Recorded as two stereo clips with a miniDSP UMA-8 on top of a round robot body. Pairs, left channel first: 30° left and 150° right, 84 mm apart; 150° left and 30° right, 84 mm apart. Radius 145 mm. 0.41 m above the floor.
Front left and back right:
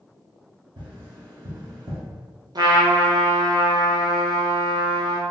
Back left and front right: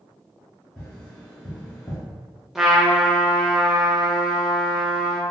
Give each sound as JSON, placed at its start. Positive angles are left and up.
{"t": 0.8, "sound": "tapping", "azimuth_deg": -135, "distance_m": 1.2}
{"t": 2.5, "sound": "a trumpet", "azimuth_deg": -115, "distance_m": 0.6}